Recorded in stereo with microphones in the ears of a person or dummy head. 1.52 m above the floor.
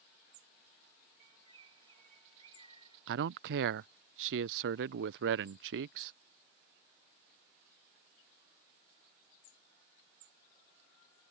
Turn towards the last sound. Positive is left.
turn(degrees=-70)  # may be behind; listen again after turning